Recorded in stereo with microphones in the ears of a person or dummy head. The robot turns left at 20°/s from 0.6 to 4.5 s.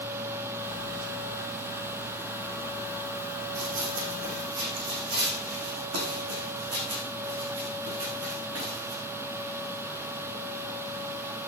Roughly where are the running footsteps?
Right.